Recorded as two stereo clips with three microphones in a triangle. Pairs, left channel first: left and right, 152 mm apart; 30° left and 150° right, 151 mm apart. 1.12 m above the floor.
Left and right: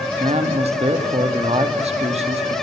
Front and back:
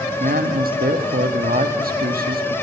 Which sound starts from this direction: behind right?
A man speaking, at 0.2 s.